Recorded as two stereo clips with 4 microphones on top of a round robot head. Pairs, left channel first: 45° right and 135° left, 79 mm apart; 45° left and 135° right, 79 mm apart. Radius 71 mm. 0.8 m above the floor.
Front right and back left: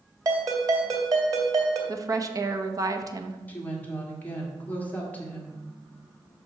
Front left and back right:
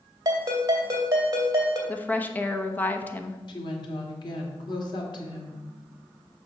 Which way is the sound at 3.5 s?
25° left.